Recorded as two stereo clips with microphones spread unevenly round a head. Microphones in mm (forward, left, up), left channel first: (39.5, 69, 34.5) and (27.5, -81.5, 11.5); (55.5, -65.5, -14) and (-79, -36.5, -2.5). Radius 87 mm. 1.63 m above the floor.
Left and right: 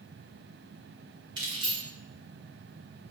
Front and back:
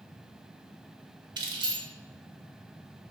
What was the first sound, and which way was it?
Keys jangling, 160° right.